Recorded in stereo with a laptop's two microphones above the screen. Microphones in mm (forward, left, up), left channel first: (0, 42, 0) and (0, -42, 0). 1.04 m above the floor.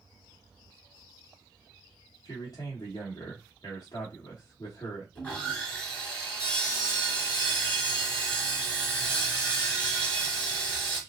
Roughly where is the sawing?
Centre.